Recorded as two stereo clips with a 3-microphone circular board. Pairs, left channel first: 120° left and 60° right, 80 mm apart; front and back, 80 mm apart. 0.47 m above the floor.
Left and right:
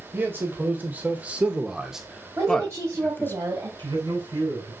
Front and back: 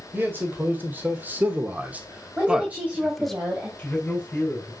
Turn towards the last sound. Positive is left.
turn(degrees=-80)